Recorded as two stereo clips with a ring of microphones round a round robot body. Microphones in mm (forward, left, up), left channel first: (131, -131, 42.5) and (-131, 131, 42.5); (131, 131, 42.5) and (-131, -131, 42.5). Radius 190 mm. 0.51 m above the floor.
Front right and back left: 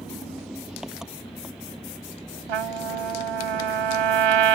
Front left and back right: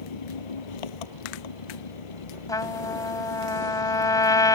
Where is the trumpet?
125° left.